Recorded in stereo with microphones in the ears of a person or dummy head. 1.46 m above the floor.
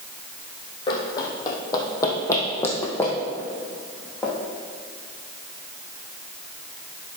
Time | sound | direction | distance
0.9 | running footsteps | 30° left (ahead or behind) | 2 m